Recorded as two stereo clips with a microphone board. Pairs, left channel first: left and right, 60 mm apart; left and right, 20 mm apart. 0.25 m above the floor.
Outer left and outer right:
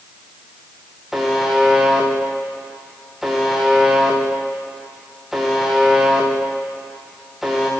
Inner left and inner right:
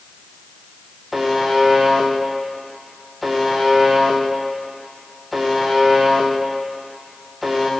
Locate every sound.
1.1 s a buzzer: 5° right (ahead or behind), 4.5 m